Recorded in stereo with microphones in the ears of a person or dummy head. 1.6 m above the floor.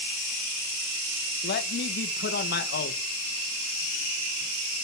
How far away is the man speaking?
About 2 m.